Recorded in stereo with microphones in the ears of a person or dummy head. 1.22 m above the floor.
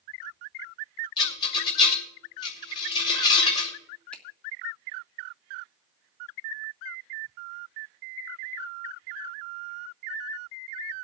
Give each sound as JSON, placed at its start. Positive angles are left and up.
{"t": 1.2, "sound": "a rattle", "side_deg": 25, "distance_m": 3.0}
{"t": 4.1, "sound": "a finger snap", "side_deg": 5, "distance_m": 1.5}